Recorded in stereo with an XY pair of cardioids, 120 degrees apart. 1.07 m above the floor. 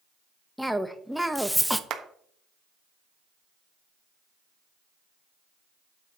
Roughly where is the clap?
Ahead right.